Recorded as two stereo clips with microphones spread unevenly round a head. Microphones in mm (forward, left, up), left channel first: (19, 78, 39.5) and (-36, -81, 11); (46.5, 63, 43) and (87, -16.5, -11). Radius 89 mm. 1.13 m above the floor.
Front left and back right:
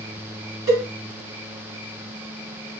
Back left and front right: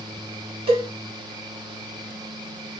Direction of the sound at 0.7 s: 35° right.